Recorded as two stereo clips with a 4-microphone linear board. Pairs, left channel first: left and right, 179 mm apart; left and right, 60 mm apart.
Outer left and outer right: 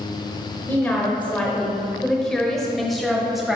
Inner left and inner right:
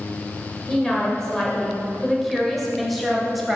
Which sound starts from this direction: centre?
A woman speaking, at 0.7 s.